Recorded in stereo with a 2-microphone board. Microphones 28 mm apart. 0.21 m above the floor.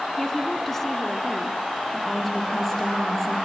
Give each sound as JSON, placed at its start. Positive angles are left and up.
{"t": 0.2, "sound": "a woman speaking", "side_deg": 10, "distance_m": 2.0}
{"t": 1.9, "sound": "a woman speaking", "side_deg": 10, "distance_m": 7.0}